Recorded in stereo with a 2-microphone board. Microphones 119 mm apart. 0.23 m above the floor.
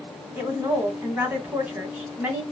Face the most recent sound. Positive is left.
turn(degrees=-15)  # may be behind; listen again after turning